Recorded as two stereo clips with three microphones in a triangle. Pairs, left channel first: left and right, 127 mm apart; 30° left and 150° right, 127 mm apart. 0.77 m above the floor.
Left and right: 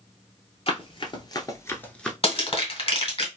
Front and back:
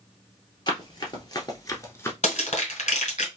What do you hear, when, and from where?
0.7 s running footsteps: 70° left, 1.1 m; by 2.1 s 10° left, 0.7 m
2.2 s crushing: 55° left, 1.8 m